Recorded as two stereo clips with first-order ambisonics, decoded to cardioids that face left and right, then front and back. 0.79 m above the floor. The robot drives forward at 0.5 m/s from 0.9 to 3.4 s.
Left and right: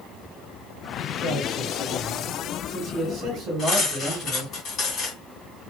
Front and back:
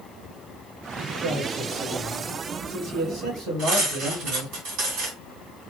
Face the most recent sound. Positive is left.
turn(degrees=155)